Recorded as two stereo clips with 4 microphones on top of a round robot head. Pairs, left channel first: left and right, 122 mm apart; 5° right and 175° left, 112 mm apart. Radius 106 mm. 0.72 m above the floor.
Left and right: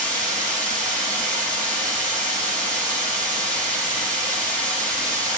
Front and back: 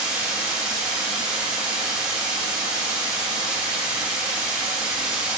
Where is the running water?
105° right, 2.5 m.